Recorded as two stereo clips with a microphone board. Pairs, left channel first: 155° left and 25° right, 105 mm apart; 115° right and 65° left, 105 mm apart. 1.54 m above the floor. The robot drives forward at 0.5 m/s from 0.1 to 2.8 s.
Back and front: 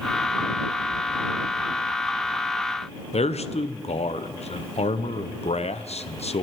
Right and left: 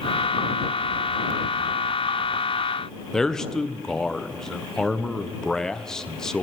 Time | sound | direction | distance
3.1 | a man speaking | 160° left | 0.7 m